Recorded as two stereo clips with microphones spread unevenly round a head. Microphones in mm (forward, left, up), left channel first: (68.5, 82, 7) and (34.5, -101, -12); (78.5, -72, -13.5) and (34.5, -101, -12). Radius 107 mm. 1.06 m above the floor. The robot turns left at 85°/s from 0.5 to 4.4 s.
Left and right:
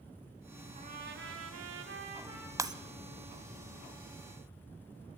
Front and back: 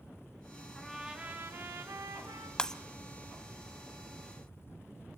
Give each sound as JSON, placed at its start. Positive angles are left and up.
{"t": 0.8, "sound": "a trumpet", "azimuth_deg": -45, "distance_m": 3.0}
{"t": 2.6, "sound": "breaking glass", "azimuth_deg": -30, "distance_m": 1.0}